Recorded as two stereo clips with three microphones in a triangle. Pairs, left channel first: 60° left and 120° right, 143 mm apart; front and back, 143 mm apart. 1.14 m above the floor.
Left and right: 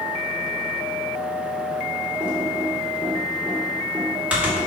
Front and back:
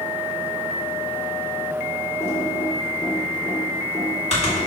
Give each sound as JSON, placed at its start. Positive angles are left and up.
{"t": 2.2, "sound": "typing on a keyboard", "azimuth_deg": -40, "distance_m": 3.0}